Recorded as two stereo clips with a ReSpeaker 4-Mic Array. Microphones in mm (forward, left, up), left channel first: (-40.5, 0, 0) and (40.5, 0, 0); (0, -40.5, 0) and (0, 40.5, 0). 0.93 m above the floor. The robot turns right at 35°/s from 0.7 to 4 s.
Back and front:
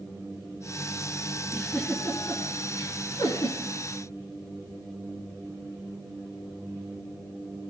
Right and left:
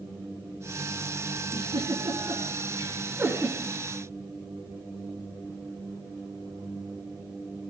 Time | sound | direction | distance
1.5 | a giggle | 95° left | 3 m